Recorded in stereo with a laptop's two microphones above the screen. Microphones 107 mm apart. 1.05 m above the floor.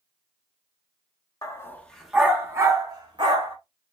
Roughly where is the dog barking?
Left.